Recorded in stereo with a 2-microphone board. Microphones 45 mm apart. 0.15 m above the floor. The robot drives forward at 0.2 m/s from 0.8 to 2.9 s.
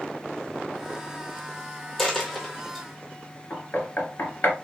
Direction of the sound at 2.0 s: 5° left (ahead or behind).